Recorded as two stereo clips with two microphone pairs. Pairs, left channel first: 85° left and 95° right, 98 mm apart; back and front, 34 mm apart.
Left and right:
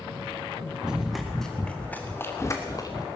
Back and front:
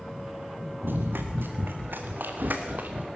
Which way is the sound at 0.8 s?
10° right.